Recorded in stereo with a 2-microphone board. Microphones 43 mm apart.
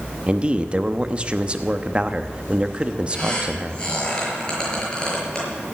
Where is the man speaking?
25° right (ahead or behind), 1.0 m.